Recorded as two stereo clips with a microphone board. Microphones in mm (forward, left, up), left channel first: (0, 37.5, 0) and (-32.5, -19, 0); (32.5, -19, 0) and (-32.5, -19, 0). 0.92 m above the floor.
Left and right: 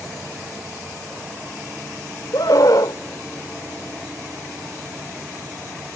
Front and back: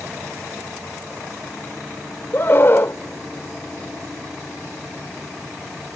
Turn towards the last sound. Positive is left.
turn(degrees=50)